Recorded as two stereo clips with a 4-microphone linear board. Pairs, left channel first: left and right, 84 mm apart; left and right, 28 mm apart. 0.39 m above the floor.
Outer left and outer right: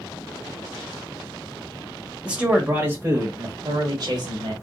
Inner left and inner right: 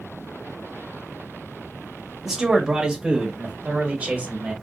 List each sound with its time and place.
2.2 s a man speaking: 10° right (ahead or behind), 1.4 m; by 4.5 s 55° right (ahead or behind), 1.6 m